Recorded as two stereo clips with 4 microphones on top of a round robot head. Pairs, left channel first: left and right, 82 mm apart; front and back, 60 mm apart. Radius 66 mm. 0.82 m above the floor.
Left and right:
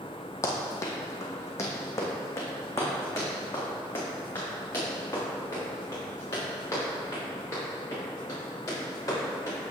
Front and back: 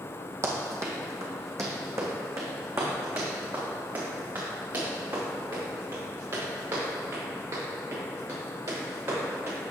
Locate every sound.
0.4 s running footsteps: 140° left, 1.7 m; by 9.6 s 145° left, 9 m